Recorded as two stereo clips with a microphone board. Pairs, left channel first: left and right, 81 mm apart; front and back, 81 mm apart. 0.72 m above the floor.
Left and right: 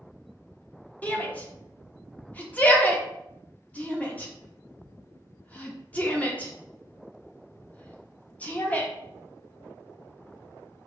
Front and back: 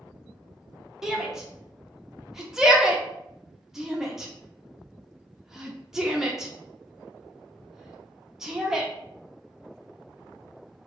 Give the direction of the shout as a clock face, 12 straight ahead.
8 o'clock.